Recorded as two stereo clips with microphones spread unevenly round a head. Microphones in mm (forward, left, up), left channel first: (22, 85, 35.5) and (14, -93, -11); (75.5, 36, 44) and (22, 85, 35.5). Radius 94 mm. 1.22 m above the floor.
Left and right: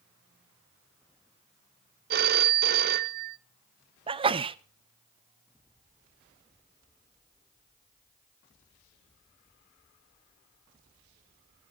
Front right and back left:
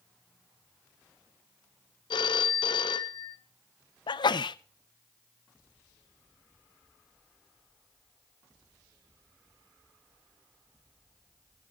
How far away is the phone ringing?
About 0.9 m.